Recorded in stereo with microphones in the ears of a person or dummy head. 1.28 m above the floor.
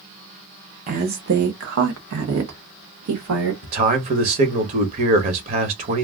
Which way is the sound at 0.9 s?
40° right (ahead or behind).